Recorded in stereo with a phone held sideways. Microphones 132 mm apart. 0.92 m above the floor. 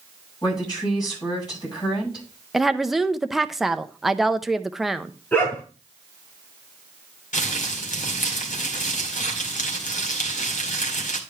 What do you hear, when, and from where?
0.4 s a woman speaking: 35° left (ahead or behind), 7.5 m
2.5 s a woman speaking: centre (ahead or behind), 0.6 m
5.3 s a dog barking: 15° left (ahead or behind), 8 m
7.3 s crumpling: 85° left, 2 m